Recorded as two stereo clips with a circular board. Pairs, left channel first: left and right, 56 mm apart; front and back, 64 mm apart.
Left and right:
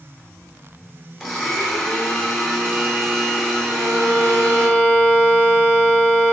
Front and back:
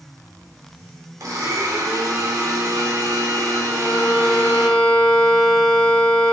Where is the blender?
Straight behind, 2 m.